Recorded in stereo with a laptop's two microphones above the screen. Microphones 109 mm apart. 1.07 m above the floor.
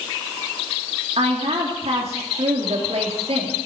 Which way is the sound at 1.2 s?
65° right (ahead or behind).